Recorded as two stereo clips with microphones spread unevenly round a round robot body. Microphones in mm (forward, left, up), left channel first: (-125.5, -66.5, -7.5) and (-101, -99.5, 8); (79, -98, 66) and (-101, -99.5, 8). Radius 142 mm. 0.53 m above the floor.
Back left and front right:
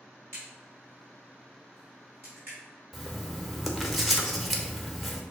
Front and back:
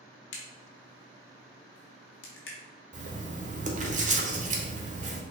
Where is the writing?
150° right, 1.0 m.